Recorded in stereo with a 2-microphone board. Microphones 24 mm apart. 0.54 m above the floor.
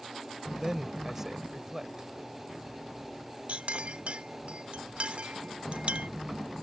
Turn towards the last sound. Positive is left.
turn(degrees=-55)  # may be behind; listen again after turning